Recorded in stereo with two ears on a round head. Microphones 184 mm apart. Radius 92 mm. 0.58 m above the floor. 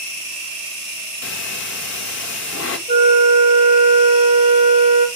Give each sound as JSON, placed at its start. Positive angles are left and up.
{"t": 1.2, "sound": "breathing", "side_deg": 60, "distance_m": 1.2}
{"t": 2.9, "sound": "a flute", "side_deg": -30, "distance_m": 1.1}